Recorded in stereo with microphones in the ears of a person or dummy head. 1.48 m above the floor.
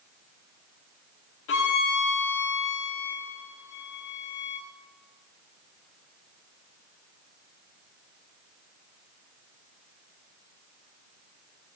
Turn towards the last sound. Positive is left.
turn(degrees=70)  # may be behind; listen again after turning